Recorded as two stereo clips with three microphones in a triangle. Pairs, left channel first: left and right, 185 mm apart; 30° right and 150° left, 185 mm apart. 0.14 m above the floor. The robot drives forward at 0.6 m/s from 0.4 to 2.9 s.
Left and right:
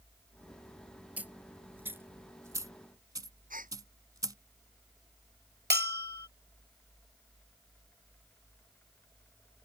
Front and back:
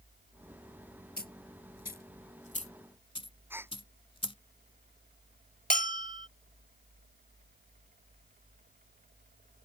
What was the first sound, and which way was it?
A dropped coin, 10° right.